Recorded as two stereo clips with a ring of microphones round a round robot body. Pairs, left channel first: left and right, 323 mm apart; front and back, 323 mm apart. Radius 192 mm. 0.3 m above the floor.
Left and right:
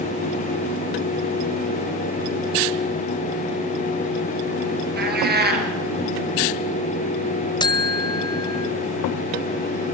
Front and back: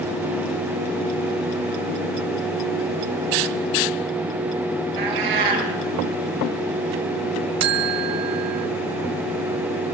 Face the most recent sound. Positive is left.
turn(degrees=165)